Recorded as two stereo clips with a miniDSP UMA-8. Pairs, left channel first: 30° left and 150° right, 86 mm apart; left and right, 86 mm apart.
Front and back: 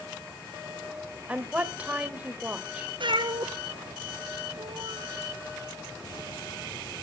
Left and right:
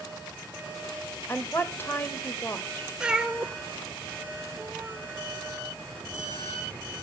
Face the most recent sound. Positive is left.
turn(degrees=-170)